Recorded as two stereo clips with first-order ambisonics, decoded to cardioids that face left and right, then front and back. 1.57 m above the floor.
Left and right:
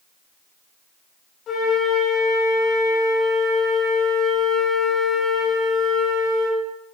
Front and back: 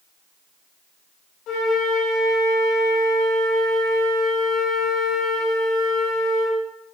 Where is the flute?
40° left, 3 m.